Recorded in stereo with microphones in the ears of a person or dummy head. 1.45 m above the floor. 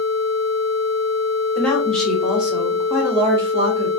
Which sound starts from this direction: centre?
A woman speaking, at 1.6 s.